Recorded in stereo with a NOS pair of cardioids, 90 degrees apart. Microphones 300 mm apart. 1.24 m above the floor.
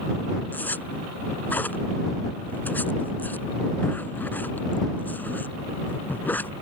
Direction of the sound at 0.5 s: 5° left.